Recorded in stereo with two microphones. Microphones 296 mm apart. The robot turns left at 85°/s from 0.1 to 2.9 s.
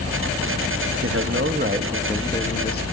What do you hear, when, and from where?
1.0 s a man speaking: 80° right, 0.7 m; by 2.8 s 130° left, 0.7 m